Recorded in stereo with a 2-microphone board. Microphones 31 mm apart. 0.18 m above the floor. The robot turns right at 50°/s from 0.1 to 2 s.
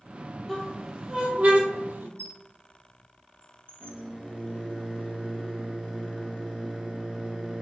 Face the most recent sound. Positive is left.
turn(degrees=-30)  # may be behind; listen again after turning